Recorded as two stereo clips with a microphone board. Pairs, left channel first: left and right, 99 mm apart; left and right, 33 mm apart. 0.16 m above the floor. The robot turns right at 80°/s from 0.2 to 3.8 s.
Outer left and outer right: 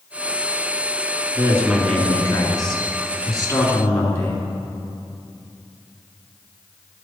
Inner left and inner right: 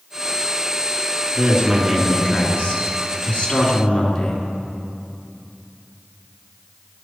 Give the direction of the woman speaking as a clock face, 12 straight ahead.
1 o'clock.